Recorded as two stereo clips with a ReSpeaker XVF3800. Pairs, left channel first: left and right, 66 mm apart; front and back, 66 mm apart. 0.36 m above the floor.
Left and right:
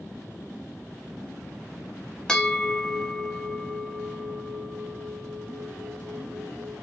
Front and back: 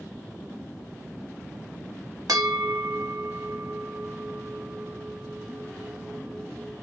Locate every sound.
2.3 s a bell: 165° left, 0.6 m